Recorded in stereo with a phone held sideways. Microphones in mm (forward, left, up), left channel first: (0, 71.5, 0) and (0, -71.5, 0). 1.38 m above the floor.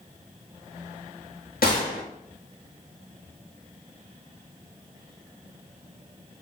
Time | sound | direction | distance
1.6 | a gunshot | 80° left | 1.0 m